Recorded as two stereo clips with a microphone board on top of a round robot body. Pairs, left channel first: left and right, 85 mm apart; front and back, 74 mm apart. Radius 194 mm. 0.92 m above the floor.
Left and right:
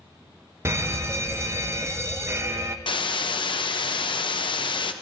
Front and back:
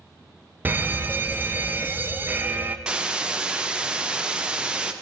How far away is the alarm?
About 0.9 m.